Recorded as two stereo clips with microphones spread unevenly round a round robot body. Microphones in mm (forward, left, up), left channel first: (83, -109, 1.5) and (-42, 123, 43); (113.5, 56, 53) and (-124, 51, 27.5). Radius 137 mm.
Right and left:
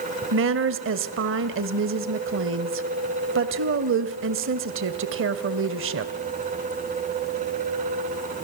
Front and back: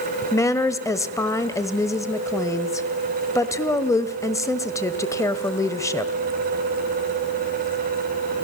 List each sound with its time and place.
0.3 s a woman speaking: 80° left, 1.5 m